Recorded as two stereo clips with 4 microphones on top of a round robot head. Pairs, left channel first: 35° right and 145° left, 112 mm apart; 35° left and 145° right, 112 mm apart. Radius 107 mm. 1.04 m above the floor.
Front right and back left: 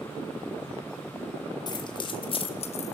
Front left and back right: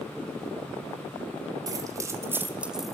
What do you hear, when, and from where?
1.7 s keys jangling: 85° right, 3 m; by 2.9 s 55° right, 1.6 m